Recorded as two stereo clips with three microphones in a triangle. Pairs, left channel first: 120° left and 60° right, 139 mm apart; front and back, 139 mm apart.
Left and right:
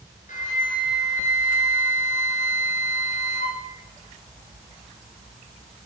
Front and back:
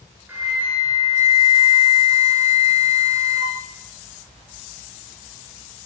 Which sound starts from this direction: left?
A flute, at 0.3 s.